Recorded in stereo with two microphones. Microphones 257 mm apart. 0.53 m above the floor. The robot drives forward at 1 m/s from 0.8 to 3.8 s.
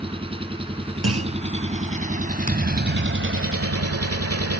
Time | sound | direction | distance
0.0 | an engine running | 20° right (ahead or behind) | ?
1.0 | a clunk | 65° right (ahead or behind) | ?
2.5 | a thud | 30° right (ahead or behind) | ?